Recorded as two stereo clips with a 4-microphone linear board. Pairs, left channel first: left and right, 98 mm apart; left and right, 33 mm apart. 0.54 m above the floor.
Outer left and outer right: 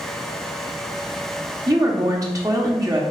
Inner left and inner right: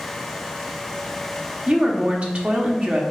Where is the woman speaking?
35° right (ahead or behind), 0.9 m.